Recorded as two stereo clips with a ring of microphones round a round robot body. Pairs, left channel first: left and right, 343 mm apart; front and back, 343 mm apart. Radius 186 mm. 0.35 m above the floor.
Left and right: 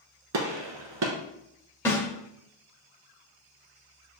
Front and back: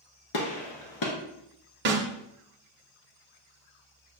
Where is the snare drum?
165° left, 0.7 m.